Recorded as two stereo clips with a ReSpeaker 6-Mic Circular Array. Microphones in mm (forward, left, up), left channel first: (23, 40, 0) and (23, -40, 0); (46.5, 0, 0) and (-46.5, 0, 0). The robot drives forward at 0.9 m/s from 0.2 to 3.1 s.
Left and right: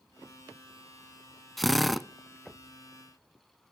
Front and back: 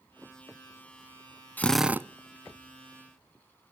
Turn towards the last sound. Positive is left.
turn(degrees=180)